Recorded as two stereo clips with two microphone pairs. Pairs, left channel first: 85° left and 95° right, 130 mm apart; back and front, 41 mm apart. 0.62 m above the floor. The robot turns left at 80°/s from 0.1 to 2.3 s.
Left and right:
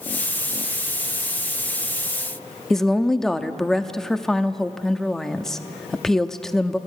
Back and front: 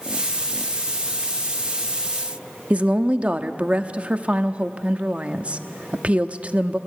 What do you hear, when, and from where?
2.7 s a woman speaking: 5° left, 0.8 m